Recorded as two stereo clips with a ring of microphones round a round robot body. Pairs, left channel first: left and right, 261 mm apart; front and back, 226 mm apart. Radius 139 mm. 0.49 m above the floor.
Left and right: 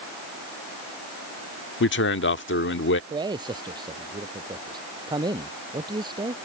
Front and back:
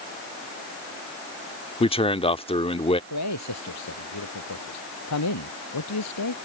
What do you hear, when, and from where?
1.8 s a man speaking: 60° left
3.1 s a man speaking: 15° right